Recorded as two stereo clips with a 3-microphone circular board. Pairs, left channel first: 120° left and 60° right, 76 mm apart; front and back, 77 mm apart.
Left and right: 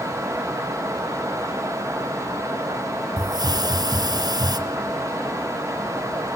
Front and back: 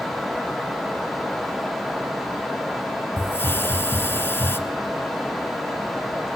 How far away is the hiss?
About 1.3 m.